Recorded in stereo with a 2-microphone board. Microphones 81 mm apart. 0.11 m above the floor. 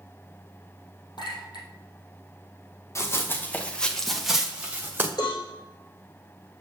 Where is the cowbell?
65° left (ahead or behind), 5.5 m.